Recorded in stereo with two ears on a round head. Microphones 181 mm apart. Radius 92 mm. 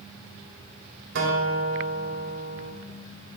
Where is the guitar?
60° right (ahead or behind), 3.5 m.